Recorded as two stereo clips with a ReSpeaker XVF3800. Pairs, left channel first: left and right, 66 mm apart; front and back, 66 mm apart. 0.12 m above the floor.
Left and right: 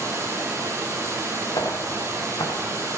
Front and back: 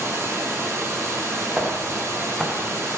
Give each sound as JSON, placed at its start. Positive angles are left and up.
{"t": 0.0, "sound": "running water", "azimuth_deg": -130, "distance_m": 2.5}
{"t": 1.6, "sound": "footsteps", "azimuth_deg": 105, "distance_m": 2.5}